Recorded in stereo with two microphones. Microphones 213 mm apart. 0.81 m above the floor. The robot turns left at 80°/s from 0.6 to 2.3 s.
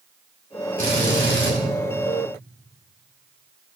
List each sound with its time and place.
0.8 s a drill: 40° right, 6.5 m; by 1.5 s 100° right, 6.5 m